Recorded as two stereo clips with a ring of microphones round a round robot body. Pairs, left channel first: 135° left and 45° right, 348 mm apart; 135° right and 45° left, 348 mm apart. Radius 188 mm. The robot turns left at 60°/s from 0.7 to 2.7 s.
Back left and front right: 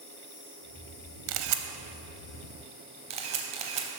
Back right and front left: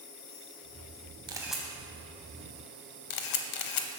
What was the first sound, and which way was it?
An insect, 165° right.